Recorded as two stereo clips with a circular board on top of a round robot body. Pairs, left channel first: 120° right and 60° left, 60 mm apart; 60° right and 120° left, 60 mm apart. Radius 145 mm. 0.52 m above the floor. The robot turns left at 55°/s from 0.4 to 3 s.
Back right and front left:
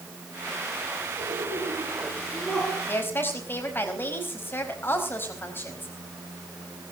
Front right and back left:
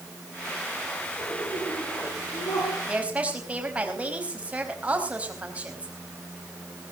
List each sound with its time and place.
1.2 s laughter: 35° left, 9.5 m; by 2.8 s 55° right, 9.5 m
2.9 s a woman speaking: 165° right, 4.5 m; by 5.9 s 170° right, 4.5 m